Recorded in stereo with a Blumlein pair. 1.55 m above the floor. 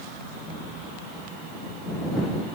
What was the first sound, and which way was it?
Only background noise.